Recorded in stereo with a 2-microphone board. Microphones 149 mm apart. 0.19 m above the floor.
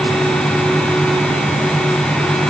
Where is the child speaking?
I don't hear a child speaking.